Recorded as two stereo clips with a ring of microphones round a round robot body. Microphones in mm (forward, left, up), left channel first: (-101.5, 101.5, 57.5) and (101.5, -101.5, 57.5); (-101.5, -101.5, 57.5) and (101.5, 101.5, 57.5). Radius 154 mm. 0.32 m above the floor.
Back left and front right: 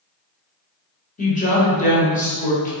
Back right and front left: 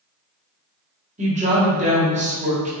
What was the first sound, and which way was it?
A woman speaking, 95° left.